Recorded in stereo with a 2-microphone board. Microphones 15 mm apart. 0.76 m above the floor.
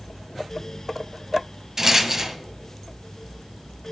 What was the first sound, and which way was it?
A rattle, 25° right (ahead or behind).